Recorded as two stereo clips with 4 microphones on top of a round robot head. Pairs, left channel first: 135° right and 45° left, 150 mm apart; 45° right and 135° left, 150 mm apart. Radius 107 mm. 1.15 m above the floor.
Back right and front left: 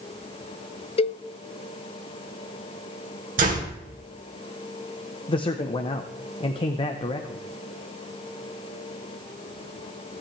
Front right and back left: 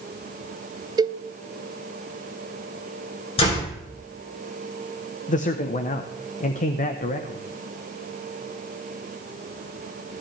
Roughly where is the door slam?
Ahead.